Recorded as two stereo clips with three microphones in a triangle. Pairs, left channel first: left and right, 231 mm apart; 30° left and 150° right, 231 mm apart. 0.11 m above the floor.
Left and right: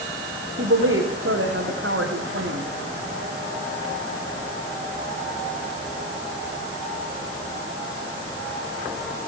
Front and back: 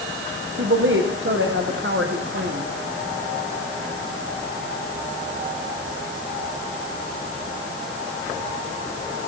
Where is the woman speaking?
115° right, 8 m.